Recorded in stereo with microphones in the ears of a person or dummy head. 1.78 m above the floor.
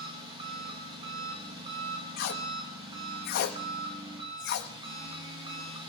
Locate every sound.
0.0 s an engine running: 25° right (ahead or behind), 1.8 m
2.2 s tape being pulled: 50° left (ahead or behind), 0.8 m